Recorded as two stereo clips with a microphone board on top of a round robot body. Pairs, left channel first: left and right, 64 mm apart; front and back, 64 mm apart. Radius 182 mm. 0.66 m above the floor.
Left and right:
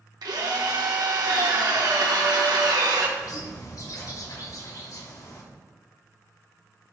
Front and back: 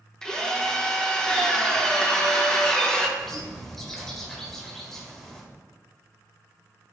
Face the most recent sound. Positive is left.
turn(degrees=85)